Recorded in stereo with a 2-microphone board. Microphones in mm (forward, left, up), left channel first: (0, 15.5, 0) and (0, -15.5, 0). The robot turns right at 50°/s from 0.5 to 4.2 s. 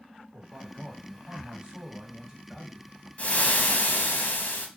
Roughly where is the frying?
Ahead left.